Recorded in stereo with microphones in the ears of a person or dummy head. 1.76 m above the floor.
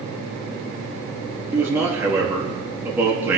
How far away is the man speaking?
About 3 m.